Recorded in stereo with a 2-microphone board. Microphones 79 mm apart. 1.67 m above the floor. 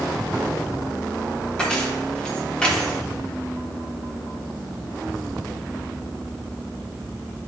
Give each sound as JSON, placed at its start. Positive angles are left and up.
{"t": 1.6, "sound": "keys jangling", "side_deg": 10, "distance_m": 1.0}